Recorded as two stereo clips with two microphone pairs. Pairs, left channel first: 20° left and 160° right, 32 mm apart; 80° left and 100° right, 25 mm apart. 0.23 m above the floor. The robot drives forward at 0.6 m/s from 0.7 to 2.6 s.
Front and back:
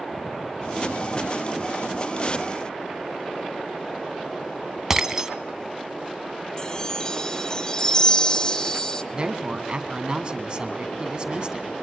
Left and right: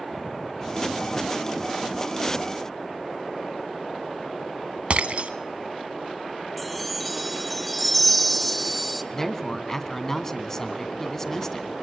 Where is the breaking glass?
90° right, 1.1 m.